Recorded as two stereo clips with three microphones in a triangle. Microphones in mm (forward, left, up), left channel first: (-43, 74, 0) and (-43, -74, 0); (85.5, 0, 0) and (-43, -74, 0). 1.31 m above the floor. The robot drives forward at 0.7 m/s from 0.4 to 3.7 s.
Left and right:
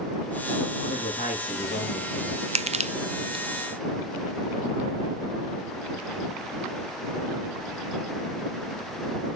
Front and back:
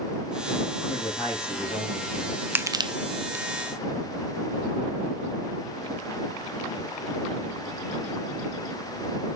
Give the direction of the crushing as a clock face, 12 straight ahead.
3 o'clock.